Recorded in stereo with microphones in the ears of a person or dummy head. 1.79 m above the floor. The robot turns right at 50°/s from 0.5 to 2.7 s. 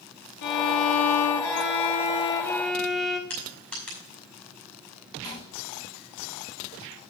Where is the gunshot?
30° left (ahead or behind), 1.2 m.